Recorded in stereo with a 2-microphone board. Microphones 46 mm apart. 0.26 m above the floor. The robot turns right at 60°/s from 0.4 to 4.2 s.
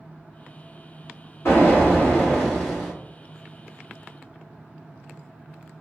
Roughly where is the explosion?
Left.